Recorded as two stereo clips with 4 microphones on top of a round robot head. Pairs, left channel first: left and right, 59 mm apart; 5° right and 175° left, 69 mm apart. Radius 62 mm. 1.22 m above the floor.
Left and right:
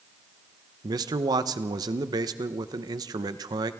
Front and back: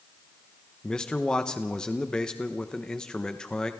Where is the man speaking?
85° right, 1.0 m.